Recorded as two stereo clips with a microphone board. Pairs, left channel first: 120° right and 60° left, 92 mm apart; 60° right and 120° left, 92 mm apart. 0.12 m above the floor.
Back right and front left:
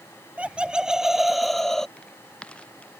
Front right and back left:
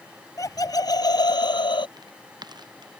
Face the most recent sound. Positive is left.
turn(degrees=160)